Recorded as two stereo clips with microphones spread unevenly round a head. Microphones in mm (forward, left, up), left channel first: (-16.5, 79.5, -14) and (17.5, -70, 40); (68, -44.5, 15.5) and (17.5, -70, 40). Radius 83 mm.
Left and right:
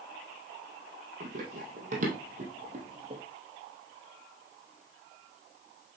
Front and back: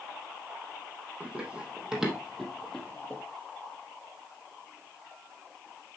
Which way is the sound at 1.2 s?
100° right.